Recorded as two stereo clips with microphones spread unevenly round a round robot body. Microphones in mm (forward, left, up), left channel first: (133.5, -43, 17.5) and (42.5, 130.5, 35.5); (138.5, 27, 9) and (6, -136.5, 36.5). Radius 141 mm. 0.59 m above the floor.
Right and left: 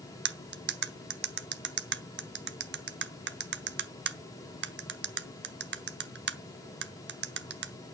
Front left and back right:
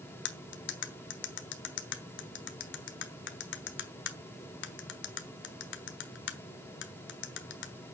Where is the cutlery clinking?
85° left, 1.1 m.